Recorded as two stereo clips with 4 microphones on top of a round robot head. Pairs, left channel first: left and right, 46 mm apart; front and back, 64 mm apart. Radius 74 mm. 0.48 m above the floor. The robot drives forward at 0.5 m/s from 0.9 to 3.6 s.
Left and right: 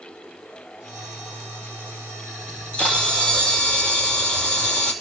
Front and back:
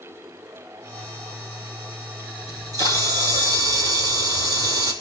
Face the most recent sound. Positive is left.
turn(degrees=160)